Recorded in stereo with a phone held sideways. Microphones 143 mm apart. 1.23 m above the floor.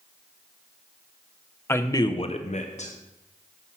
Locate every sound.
1.7 s a man speaking: 15° left (ahead or behind), 0.8 m; by 2.9 s 50° left (ahead or behind), 0.7 m